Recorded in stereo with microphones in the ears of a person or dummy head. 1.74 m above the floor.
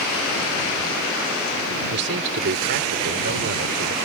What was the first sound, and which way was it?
A man speaking, 70° right (ahead or behind).